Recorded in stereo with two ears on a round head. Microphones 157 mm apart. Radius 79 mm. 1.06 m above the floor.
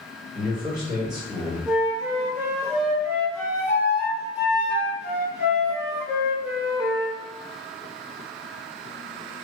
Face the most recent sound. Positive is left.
turn(degrees=-10)  # may be behind; listen again after turning